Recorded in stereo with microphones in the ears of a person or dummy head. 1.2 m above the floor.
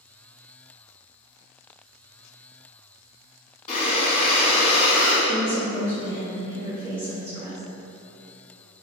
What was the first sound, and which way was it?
Breathing, 30° left (ahead or behind).